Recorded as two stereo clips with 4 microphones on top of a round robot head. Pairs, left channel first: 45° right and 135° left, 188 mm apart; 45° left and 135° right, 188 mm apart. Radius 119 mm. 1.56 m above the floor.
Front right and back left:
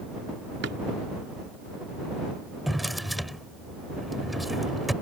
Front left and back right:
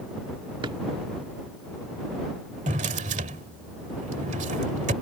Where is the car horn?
No car horn in this recording.